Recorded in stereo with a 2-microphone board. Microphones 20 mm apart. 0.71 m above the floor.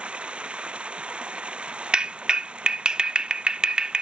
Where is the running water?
60° right (ahead or behind).